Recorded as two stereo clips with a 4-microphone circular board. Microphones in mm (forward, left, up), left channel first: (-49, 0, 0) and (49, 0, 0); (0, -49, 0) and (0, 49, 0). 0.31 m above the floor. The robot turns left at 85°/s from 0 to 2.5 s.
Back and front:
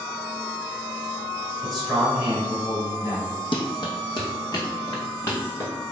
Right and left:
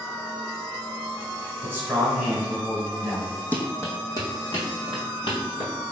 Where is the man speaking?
100° left, 1.3 m; by 3.4 s 25° left, 1.3 m.